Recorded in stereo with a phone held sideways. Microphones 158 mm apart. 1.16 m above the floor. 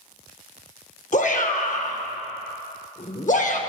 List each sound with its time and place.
1.1 s a shout: 50° left (ahead or behind), 0.8 m